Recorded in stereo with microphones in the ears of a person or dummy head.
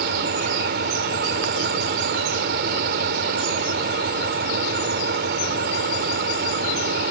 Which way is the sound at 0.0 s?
50° right (ahead or behind).